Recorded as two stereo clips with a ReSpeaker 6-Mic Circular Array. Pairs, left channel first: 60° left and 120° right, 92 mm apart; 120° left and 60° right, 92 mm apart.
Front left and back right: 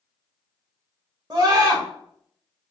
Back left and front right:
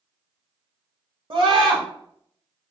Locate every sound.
1.3 s a scream: 75° right, 1.0 m